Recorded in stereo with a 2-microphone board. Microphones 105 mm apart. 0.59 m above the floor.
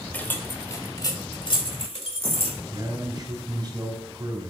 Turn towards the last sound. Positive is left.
turn(degrees=-45)  # may be behind; listen again after turning